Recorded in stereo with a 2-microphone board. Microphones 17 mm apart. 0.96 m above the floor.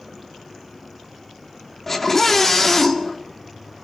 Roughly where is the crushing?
No crushing in this recording.